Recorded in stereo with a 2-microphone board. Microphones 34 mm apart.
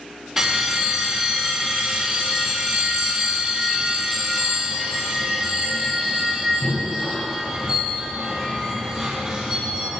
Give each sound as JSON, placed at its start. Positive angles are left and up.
{"t": 0.4, "sound": "a bell", "side_deg": -5, "distance_m": 4.0}